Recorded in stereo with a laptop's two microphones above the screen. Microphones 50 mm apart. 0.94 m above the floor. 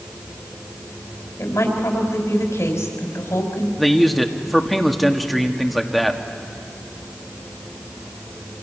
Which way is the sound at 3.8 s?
Centre (ahead or behind).